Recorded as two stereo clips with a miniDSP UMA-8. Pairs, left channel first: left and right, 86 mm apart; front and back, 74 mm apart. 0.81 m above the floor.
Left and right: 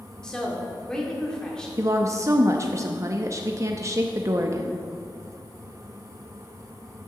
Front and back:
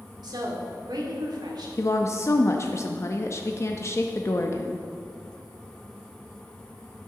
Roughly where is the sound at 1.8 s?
Ahead right.